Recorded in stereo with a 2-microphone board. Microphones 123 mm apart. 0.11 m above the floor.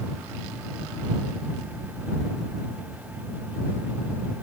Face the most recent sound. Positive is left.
No sound to turn to.